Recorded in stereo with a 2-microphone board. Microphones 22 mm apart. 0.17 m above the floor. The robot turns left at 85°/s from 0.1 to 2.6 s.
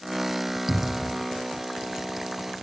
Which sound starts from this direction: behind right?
A cupboard door, at 0.7 s.